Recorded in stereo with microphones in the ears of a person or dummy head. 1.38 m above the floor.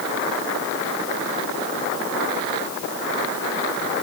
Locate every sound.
Only background noise.